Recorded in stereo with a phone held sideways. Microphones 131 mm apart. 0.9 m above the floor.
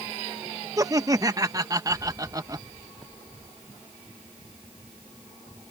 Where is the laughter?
30° right (ahead or behind).